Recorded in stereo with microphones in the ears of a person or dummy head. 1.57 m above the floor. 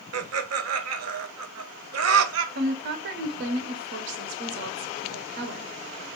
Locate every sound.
0.1 s laughter: 80° right, 0.6 m
2.5 s a woman speaking: 65° right (ahead or behind), 0.7 m